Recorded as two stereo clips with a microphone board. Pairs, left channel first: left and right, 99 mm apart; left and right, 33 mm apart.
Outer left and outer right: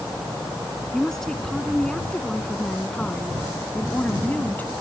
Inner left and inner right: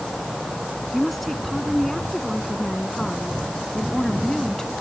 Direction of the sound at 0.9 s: 5° left (ahead or behind).